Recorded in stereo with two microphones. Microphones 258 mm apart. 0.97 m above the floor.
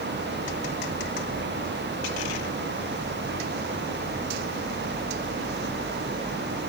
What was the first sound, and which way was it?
Only background noise.